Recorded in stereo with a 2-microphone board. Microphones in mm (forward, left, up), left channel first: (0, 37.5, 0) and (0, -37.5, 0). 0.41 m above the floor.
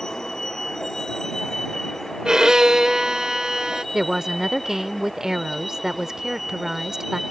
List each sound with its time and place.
0.0 s a vehicle: 10° left (ahead or behind); by 7.3 s centre (ahead or behind)
2.2 s a violin: 10° right (ahead or behind)
3.9 s a woman speaking: 10° right (ahead or behind)